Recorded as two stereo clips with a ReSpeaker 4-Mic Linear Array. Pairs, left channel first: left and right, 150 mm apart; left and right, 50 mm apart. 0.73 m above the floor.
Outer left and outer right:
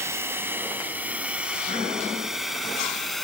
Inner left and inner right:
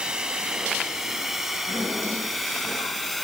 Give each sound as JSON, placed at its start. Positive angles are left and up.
{"t": 0.0, "sound": "a drone", "side_deg": -15}